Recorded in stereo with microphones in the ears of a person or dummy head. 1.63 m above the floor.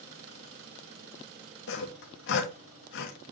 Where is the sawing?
65° left (ahead or behind), 2 m.